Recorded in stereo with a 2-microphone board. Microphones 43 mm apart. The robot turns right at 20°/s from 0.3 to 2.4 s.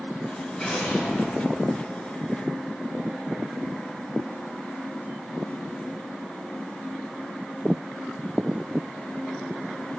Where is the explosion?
15° left (ahead or behind), 2.5 m; by 1.7 s 35° left (ahead or behind), 2.5 m.